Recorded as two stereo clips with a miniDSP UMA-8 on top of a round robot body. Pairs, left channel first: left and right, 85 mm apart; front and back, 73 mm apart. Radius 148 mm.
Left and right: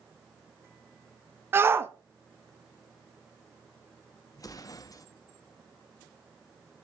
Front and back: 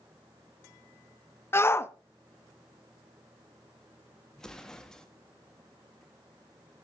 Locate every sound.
1.5 s a shout: 40° right, 0.8 m
4.3 s an explosion: 75° left, 1.4 m